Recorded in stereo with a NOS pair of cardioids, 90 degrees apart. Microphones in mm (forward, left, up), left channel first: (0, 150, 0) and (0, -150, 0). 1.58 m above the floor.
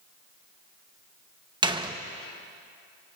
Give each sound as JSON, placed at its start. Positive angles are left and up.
{"t": 1.6, "sound": "a door slam", "azimuth_deg": -15, "distance_m": 1.3}